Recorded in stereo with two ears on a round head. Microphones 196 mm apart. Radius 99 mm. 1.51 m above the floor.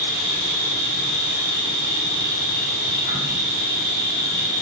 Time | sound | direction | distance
0.0 | an insect | 45° right (ahead or behind) | 1.1 m